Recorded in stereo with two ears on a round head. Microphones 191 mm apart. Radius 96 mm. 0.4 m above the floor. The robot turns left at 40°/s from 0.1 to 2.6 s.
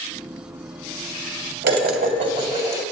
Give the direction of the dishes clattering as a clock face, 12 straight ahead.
4 o'clock.